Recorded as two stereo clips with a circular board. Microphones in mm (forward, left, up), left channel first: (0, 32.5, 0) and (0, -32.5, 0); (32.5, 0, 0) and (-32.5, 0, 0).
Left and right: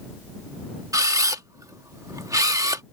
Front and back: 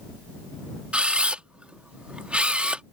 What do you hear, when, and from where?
0.9 s a camera shutter: 110° right